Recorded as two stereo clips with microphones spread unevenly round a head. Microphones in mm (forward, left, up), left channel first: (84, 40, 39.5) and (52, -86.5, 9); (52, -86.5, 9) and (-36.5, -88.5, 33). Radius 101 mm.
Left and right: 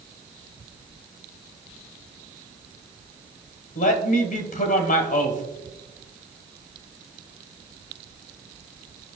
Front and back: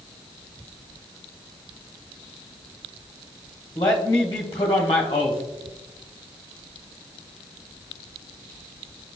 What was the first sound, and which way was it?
A man speaking, 70° left.